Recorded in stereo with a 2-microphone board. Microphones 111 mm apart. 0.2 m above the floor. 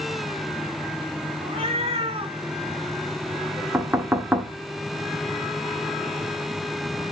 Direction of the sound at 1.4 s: 55° right (ahead or behind).